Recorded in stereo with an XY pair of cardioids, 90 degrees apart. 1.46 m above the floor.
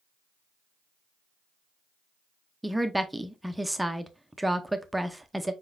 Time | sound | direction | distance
2.6 | a woman speaking | 10° right | 0.6 m